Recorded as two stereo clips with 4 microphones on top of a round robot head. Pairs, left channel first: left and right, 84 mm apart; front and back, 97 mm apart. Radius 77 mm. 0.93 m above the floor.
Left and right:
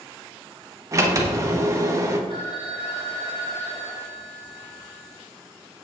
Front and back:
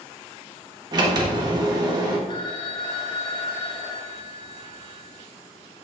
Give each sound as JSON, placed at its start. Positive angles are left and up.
{"t": 0.9, "sound": "a sliding door", "azimuth_deg": -140, "distance_m": 1.1}
{"t": 2.3, "sound": "a phone ringing", "azimuth_deg": 40, "distance_m": 1.4}